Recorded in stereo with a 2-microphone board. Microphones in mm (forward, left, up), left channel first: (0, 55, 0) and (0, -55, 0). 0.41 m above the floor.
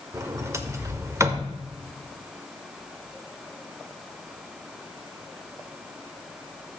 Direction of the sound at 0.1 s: 25° right (ahead or behind).